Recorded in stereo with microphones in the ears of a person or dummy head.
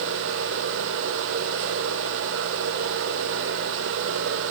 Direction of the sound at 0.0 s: 85° right.